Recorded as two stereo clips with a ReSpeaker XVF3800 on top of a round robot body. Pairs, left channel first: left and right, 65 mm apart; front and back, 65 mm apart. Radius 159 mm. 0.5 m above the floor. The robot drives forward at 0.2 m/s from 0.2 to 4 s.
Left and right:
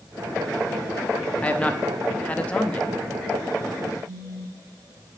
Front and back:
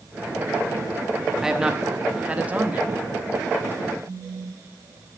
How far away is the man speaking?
About 1.0 m.